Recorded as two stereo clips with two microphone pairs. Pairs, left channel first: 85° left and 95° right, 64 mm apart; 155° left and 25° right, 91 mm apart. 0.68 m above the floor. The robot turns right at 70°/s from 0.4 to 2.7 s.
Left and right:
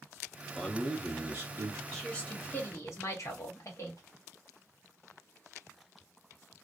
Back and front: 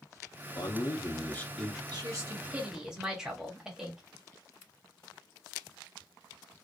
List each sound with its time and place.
0.6 s a man speaking: 165° left, 0.9 m; by 1.8 s 105° right, 0.9 m
1.9 s a woman speaking: 5° left, 1.3 m; by 4.0 s 60° left, 1.3 m